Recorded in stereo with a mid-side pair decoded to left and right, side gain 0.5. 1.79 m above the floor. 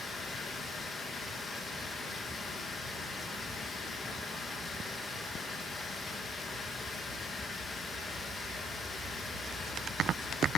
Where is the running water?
30° left, 2 m.